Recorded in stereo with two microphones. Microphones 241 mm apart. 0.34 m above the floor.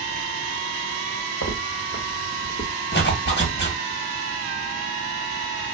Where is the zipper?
45° left (ahead or behind), 0.7 m.